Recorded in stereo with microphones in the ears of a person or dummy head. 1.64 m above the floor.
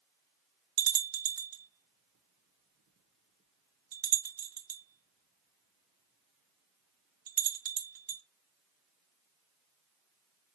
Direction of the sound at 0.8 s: 55° right (ahead or behind).